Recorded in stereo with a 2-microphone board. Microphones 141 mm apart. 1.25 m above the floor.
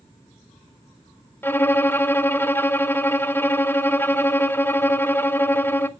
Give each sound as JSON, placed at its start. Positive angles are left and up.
{"t": 1.4, "sound": "a violin", "side_deg": 15, "distance_m": 0.6}